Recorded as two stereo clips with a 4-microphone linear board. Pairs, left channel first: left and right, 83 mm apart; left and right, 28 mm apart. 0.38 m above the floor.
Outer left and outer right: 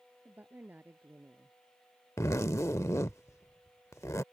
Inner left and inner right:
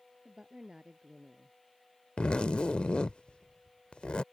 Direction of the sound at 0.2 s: 20° right (ahead or behind).